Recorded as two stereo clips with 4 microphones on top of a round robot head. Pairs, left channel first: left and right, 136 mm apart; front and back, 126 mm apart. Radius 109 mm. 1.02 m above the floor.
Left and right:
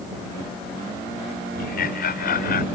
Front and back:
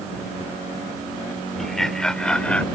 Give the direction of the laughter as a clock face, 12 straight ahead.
9 o'clock.